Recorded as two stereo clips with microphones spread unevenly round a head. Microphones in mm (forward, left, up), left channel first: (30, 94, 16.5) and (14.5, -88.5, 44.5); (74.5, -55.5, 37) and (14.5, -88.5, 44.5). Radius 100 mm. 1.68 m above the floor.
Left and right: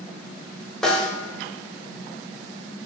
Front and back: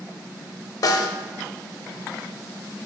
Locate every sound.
0.8 s a snare drum: 5° right, 0.5 m